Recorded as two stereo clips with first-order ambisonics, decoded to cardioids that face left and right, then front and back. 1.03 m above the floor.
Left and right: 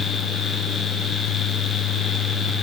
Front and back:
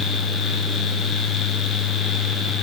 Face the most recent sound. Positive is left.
No sound to turn to.